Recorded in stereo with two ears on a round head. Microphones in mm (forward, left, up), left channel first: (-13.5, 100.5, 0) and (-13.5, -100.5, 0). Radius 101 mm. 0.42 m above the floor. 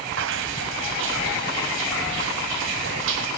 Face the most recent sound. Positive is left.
turn(degrees=-60)  # may be behind; listen again after turning